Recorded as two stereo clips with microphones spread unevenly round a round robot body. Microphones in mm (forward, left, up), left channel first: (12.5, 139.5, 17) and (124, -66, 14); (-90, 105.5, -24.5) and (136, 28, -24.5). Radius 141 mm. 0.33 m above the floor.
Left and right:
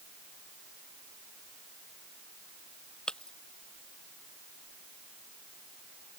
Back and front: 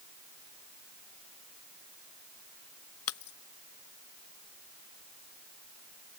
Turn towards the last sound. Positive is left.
turn(degrees=-155)